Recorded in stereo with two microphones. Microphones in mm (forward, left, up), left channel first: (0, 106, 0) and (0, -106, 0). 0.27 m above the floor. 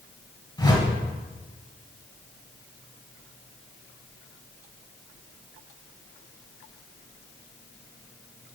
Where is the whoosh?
20° left (ahead or behind), 1.5 m.